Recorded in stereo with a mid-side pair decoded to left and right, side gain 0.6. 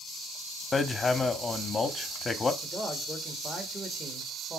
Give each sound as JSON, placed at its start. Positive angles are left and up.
{"t": 0.7, "sound": "hammering", "azimuth_deg": 20, "distance_m": 1.0}
{"t": 2.6, "sound": "a man speaking", "azimuth_deg": -15, "distance_m": 1.7}